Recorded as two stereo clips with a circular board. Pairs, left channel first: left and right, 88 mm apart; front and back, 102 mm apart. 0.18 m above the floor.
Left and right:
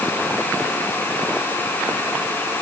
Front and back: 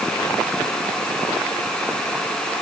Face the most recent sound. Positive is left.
No sound to turn to.